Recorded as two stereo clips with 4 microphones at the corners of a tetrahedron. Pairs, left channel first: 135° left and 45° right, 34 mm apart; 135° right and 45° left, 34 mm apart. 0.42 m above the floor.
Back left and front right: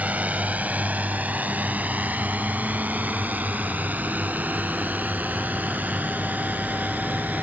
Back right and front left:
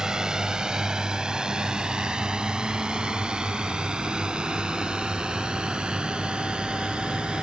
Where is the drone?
20° right; by 7.4 s 15° right.